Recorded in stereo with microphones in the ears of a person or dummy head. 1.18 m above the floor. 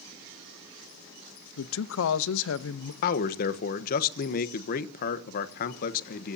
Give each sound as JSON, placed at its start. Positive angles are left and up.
{"t": 1.6, "sound": "a man speaking", "side_deg": 70, "distance_m": 0.8}
{"t": 3.0, "sound": "a man speaking", "side_deg": 50, "distance_m": 1.1}